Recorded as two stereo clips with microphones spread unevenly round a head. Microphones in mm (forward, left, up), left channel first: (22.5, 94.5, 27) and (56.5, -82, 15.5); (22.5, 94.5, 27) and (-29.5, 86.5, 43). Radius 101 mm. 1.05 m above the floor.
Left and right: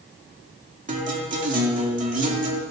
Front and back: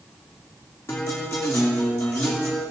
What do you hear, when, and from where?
0.9 s a guitar: 35° right, 2 m